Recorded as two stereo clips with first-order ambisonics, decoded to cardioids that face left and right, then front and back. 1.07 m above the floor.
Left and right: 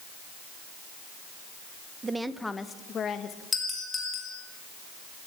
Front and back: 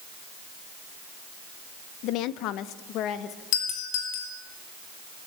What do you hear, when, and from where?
2.0 s a woman speaking: 20° right, 1.0 m; by 3.4 s 40° left, 1.8 m
3.5 s a doorbell: 15° left, 6.5 m